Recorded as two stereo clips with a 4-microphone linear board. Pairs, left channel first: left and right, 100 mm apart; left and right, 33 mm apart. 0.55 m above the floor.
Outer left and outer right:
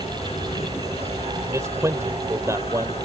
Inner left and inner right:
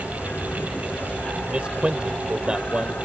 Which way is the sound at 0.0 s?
80° left.